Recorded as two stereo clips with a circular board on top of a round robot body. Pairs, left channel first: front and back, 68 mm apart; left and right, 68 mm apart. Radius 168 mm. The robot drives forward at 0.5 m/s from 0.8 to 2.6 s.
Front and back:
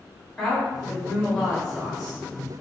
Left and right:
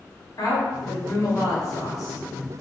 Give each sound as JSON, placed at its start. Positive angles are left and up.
{"t": 0.4, "sound": "a woman speaking", "azimuth_deg": 80, "distance_m": 1.6}